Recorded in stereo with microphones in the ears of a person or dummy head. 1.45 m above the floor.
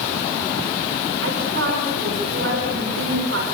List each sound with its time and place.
1.2 s a woman speaking: 75° right (ahead or behind), 5.5 m